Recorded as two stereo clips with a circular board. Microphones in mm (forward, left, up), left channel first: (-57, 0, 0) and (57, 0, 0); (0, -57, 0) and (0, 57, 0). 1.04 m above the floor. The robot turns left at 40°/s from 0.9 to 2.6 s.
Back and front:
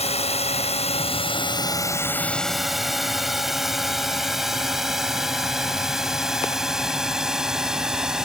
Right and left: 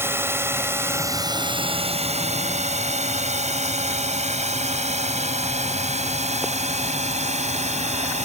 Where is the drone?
160° left; by 8.3 s 85° left.